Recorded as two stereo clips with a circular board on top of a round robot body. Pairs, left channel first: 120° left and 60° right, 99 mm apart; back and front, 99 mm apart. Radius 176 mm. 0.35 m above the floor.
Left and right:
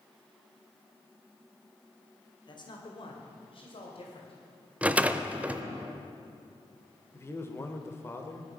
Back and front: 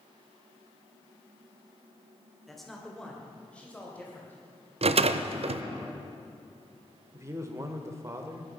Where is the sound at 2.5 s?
90° left, 2.5 m; by 4.7 s 110° left, 3.5 m.